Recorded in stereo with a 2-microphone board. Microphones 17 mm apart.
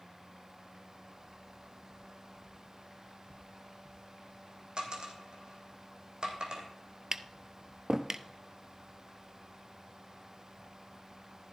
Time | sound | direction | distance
4.8 | a dropped coin | 55° right (ahead or behind) | 3 m
7.1 | tapping | 30° right (ahead or behind) | 0.6 m